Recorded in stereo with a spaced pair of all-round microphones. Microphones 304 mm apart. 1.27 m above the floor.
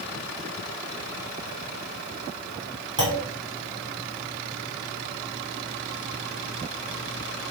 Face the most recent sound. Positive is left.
turn(degrees=-85)